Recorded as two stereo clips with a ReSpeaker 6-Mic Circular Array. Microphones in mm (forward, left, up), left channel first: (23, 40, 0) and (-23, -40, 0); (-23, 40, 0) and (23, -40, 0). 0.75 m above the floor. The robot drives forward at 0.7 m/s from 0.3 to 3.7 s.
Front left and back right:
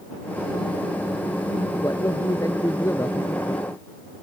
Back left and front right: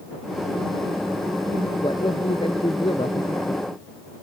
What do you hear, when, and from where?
1.8 s a man speaking: 110° left; by 3.7 s 120° left